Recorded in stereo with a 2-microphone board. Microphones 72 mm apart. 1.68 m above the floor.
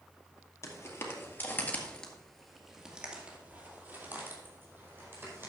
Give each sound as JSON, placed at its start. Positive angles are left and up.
{"t": 0.6, "sound": "footsteps", "side_deg": 40, "distance_m": 2.5}